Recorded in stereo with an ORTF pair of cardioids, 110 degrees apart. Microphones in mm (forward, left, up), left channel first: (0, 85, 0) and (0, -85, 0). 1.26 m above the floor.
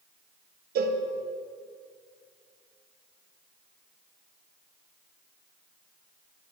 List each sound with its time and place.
0.8 s a cowbell: 65° right, 1.2 m